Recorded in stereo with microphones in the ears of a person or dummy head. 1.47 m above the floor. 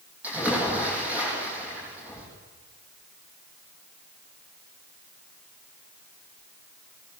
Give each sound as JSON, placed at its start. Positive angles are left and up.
{"t": 0.2, "sound": "a splash", "side_deg": -10, "distance_m": 10.0}